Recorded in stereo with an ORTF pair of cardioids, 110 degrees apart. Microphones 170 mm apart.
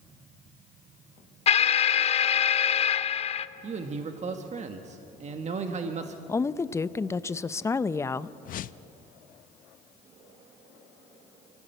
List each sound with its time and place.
1.5 s an alarm: 35° left, 0.6 m
3.6 s a man speaking: 40° right, 1.5 m
6.3 s a woman speaking: 15° left, 0.6 m
8.4 s a whoosh: 50° left, 0.6 m